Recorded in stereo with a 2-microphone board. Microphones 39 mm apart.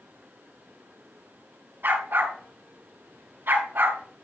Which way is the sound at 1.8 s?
60° right (ahead or behind).